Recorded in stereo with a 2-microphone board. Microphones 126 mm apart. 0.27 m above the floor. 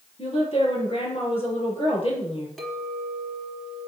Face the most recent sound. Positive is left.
turn(degrees=0)  # may be behind; listen again after turning